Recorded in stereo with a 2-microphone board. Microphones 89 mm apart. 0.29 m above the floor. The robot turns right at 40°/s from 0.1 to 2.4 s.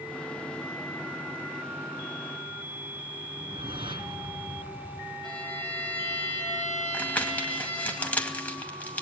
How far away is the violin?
About 7.5 m.